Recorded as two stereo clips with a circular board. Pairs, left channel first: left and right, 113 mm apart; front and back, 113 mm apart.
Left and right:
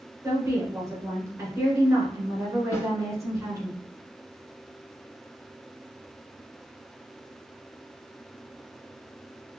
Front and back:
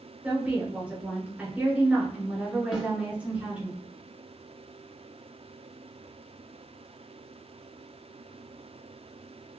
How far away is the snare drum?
About 1.7 m.